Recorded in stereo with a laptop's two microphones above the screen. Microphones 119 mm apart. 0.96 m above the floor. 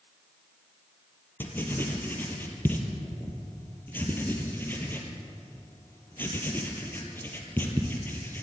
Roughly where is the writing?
Centre.